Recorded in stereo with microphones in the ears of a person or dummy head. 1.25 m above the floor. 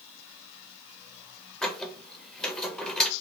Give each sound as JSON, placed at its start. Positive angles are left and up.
{"t": 1.6, "sound": "a squeak", "side_deg": 5, "distance_m": 0.5}